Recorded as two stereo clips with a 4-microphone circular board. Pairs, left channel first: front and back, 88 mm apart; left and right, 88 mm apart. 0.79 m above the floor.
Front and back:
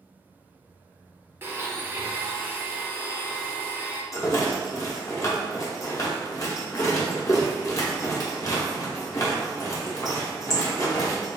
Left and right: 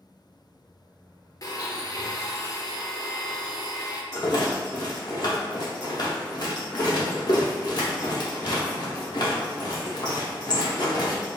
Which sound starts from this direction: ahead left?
A rattle, at 4.1 s.